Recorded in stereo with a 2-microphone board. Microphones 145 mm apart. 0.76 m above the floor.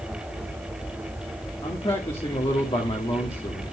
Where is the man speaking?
40° left (ahead or behind), 1.7 m.